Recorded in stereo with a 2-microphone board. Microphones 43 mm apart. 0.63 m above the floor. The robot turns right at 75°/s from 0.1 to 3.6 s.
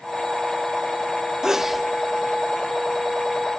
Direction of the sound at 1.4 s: 15° right (ahead or behind).